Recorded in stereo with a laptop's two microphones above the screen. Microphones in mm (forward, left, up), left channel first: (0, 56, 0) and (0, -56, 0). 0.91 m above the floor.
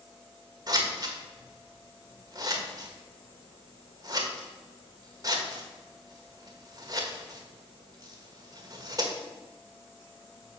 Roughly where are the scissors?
Right.